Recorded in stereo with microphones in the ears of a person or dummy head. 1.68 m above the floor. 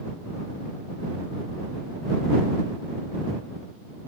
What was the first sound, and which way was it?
Only background noise.